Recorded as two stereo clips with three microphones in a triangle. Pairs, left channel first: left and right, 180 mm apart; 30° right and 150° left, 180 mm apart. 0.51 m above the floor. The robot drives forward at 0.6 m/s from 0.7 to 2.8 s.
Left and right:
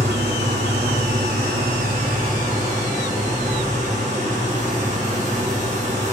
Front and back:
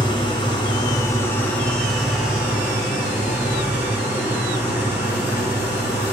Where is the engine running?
95° right, 1.5 m; by 6.1 s 130° right, 2 m.